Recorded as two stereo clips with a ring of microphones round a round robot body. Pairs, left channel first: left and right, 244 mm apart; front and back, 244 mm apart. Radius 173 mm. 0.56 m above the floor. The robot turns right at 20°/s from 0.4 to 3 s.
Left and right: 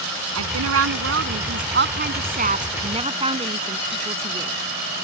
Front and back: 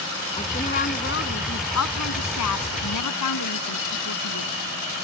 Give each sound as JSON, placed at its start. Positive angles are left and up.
{"t": 0.3, "sound": "a woman speaking", "azimuth_deg": -75}